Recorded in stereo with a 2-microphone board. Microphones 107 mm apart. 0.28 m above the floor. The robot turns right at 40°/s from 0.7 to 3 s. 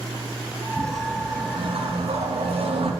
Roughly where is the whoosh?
Behind right.